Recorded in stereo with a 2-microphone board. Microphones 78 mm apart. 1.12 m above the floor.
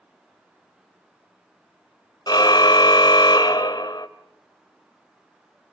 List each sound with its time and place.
2.3 s a car horn: 65° left (ahead or behind), 2 m